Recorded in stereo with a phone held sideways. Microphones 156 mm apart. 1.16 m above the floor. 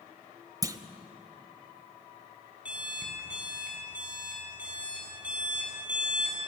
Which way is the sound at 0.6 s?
25° right (ahead or behind).